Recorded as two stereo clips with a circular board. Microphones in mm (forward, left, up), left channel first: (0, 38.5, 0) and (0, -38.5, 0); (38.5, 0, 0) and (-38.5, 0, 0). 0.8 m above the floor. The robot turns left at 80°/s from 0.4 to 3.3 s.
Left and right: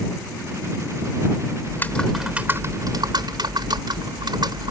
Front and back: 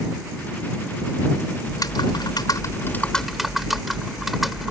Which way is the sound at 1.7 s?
40° left.